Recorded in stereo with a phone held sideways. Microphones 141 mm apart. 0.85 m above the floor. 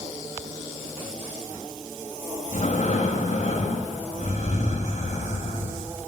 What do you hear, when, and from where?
2.5 s breathing: 60° left (ahead or behind), 1.6 m